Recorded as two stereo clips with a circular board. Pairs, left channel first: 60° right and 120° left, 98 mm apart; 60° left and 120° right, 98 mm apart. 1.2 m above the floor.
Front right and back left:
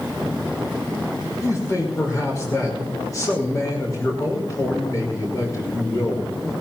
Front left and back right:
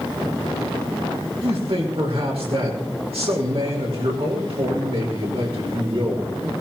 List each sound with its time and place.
1.4 s a man speaking: 115° right, 5.5 m